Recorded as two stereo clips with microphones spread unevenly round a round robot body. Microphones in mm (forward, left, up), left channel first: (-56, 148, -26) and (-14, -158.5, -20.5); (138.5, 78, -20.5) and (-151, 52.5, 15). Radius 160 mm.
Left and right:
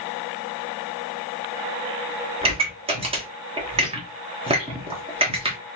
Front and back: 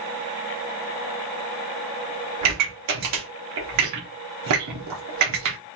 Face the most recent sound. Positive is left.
turn(degrees=-150)